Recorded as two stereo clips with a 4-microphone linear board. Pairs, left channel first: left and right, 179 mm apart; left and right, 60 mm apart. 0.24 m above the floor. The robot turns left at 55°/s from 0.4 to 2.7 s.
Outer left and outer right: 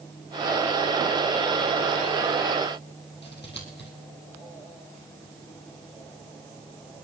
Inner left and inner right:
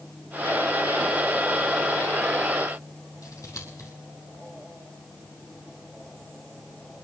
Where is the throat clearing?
No throat clearing in this recording.